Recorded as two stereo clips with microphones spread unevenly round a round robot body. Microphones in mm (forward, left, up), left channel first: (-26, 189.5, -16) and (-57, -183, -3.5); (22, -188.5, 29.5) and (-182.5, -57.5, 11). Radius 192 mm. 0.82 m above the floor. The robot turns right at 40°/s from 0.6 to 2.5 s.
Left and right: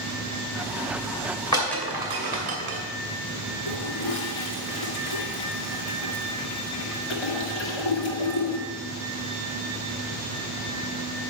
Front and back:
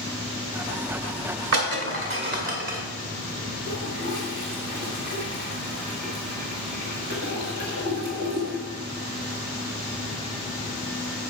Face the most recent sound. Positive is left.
turn(degrees=95)